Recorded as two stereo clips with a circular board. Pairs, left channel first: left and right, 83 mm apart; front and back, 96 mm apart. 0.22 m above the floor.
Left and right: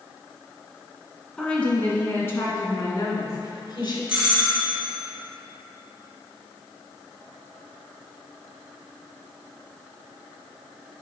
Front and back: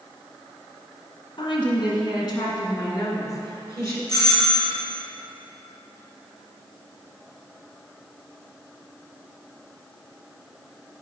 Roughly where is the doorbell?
Ahead.